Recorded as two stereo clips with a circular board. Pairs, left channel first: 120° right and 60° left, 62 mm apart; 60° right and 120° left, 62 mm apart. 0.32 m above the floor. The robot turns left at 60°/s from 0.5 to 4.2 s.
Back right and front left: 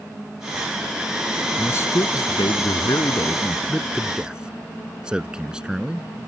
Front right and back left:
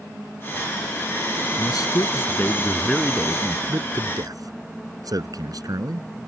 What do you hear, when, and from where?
1.6 s a man speaking: 65° right; by 6.1 s 140° left